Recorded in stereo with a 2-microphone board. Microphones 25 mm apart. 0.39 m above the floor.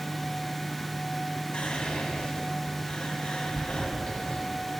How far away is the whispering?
About 3 m.